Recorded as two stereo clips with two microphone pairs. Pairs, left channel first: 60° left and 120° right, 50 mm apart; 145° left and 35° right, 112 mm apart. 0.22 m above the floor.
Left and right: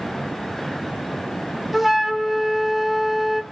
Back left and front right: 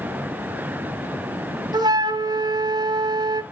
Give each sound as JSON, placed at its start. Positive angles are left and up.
{"t": 1.7, "sound": "a flute", "azimuth_deg": -40, "distance_m": 0.6}